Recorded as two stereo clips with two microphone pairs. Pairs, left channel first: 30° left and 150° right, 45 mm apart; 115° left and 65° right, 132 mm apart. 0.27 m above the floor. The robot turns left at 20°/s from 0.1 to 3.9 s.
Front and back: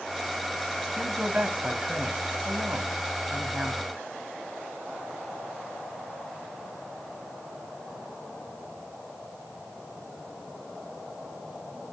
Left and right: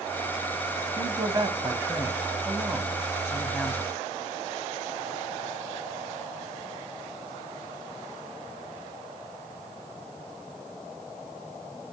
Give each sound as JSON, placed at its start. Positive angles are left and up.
{"t": 1.0, "sound": "a man speaking", "azimuth_deg": -95, "distance_m": 1.9}